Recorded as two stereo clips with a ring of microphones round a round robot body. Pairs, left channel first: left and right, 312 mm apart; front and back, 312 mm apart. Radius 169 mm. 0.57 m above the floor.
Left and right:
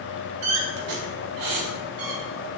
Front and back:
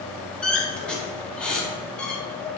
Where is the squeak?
85° right, 0.5 m.